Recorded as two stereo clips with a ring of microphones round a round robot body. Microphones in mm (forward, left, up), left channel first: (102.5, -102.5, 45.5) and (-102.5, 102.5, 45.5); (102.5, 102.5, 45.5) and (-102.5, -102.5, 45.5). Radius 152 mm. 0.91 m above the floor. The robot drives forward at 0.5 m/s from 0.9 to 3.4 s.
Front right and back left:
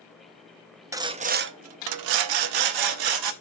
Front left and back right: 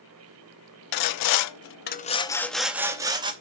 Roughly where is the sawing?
Ahead left.